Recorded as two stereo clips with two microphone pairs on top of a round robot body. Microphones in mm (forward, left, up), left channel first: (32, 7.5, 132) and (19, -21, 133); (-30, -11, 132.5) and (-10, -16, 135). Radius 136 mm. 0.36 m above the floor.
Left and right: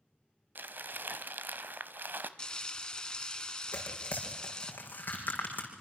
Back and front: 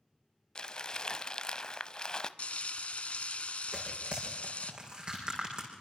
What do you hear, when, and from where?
0.6 s crumpling: 145° right, 0.9 m
2.4 s frying: 135° left, 0.9 m
3.7 s tearing paper: 35° left, 5.5 m